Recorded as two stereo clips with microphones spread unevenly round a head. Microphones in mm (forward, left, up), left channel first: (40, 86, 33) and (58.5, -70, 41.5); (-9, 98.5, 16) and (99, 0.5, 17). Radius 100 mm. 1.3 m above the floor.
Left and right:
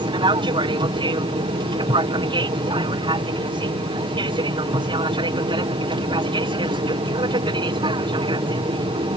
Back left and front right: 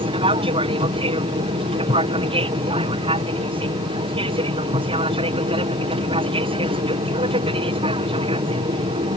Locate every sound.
0.0 s an aircraft: 45° right